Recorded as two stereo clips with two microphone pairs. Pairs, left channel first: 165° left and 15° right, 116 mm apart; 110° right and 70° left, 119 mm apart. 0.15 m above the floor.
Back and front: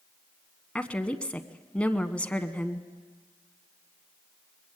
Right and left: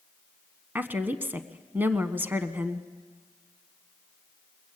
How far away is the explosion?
I don't hear an explosion.